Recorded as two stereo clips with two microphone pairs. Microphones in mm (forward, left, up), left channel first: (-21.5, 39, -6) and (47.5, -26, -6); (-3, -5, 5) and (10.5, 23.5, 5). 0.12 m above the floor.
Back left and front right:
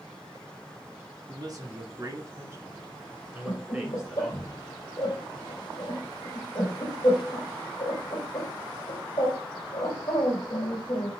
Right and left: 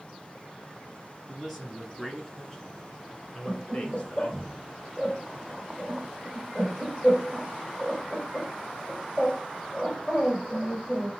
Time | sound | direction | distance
1.3 | a man speaking | 15° right | 1.5 m
3.5 | laughter | 160° left | 3 m